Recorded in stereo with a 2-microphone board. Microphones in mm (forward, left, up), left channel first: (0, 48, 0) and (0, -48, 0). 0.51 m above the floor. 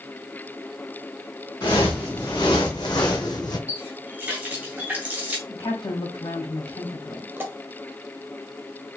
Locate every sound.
1.6 s footsteps: 50° left (ahead or behind), 2.5 m
3.7 s a running tap: 15° right (ahead or behind), 1.6 m
5.5 s a woman speaking: 75° left (ahead or behind), 2.5 m
7.4 s a pop: 25° right (ahead or behind), 1.3 m